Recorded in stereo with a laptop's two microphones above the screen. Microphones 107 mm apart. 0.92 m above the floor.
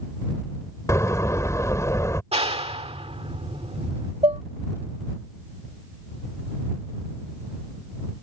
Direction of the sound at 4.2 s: 70° right (ahead or behind).